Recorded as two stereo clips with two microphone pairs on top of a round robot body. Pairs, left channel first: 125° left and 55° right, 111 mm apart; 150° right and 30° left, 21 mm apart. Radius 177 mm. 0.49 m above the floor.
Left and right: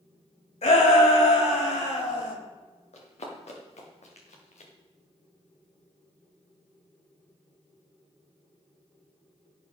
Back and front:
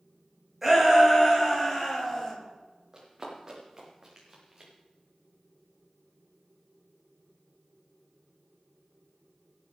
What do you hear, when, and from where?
0.6 s a shout: 110° left, 4.5 m; by 2.4 s 130° left, 4.5 m
2.9 s running footsteps: 100° left, 4.5 m; by 4.7 s 105° left, 3 m